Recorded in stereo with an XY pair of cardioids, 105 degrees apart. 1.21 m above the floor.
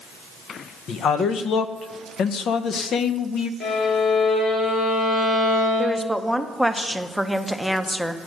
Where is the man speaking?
60° left, 0.8 m.